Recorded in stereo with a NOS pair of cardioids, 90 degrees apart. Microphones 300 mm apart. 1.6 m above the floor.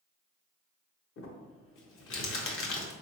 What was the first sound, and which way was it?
Crumpling, 50° left.